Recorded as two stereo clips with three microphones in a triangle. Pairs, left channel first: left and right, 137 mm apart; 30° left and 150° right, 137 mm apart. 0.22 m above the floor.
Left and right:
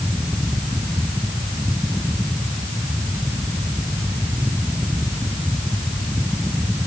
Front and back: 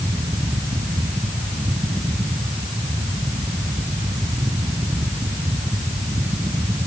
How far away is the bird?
I don't hear a bird.